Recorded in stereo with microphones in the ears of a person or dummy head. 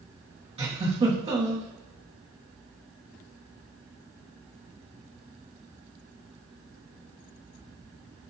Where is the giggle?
30° right (ahead or behind), 1.0 m.